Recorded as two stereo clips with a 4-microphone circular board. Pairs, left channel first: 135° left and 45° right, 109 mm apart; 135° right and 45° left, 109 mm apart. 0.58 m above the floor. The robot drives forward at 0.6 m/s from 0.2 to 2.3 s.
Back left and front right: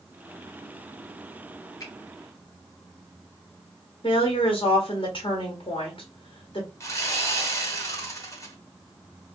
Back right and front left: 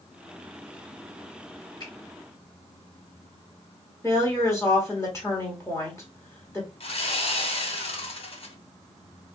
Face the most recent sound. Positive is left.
turn(degrees=-165)